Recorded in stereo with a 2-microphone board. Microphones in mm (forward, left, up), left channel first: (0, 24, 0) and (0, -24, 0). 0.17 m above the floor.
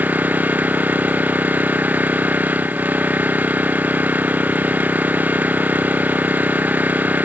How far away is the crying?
I don't hear crying.